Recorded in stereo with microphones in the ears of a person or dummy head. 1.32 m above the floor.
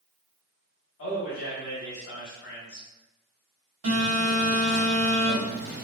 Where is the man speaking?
65° left (ahead or behind), 1.3 m.